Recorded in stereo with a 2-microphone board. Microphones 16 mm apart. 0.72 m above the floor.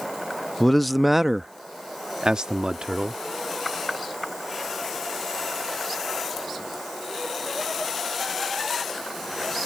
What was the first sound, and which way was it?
A man speaking, 25° left (ahead or behind).